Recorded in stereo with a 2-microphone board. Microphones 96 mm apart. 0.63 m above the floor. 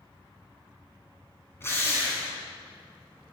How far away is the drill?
About 3 m.